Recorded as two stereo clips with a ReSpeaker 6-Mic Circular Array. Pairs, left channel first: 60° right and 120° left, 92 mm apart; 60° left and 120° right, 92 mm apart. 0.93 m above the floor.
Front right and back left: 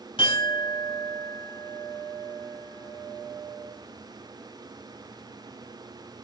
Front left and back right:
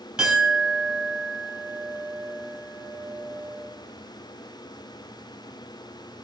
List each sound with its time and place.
0.2 s a clink: 40° right, 3 m